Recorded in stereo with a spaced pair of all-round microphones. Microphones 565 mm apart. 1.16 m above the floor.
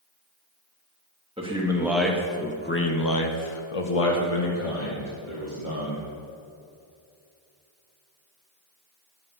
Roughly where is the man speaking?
Centre.